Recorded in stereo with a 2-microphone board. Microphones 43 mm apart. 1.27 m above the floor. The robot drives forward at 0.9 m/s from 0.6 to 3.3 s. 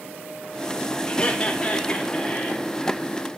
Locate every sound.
1.1 s laughter: 30° left (ahead or behind), 2.5 m; by 2.7 s 20° left (ahead or behind), 4 m